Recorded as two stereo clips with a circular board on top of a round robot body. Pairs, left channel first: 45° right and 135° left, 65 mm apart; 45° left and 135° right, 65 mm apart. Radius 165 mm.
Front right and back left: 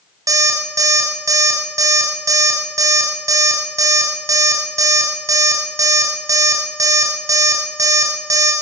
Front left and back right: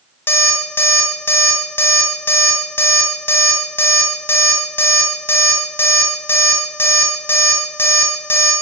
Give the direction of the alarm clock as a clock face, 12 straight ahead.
9 o'clock.